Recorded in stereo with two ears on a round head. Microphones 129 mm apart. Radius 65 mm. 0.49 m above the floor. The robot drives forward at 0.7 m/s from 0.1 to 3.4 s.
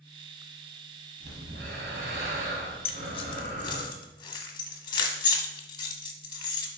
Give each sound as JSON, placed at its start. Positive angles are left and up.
{"t": 1.2, "sound": "breathing", "side_deg": -75, "distance_m": 1.7}
{"t": 2.9, "sound": "keys jangling", "side_deg": 45, "distance_m": 0.7}